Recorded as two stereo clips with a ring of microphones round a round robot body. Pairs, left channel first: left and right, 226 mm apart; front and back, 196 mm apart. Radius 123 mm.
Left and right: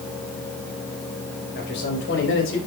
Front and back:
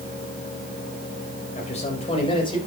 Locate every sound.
1.6 s a man speaking: 50° left, 3.5 m; by 2.6 s 65° left, 4 m